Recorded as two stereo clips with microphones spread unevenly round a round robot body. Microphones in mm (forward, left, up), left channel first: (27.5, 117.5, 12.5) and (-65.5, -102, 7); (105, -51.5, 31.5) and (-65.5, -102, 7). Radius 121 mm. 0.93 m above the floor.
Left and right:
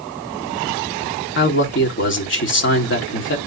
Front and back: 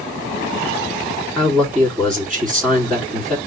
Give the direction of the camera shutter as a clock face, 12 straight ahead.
No camera shutter in this recording.